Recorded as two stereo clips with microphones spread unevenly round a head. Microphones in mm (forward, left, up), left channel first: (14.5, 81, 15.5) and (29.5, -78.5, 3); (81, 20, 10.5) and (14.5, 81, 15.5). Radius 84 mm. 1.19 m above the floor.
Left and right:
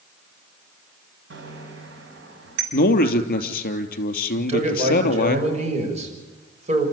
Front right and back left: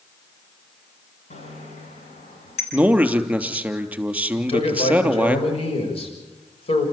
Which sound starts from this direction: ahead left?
A man speaking, at 2.7 s.